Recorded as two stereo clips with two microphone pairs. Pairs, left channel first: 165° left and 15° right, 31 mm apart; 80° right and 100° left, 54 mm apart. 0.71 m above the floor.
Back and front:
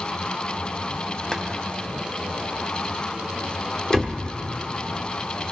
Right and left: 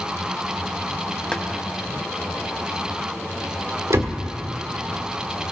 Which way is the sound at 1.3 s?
135° right.